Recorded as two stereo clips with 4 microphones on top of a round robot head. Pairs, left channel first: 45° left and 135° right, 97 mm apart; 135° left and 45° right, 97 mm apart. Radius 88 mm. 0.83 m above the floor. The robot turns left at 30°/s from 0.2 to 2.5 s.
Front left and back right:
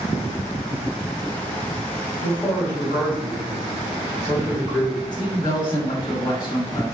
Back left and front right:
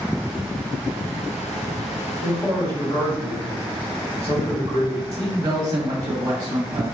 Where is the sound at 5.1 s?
5° left, 1.2 m.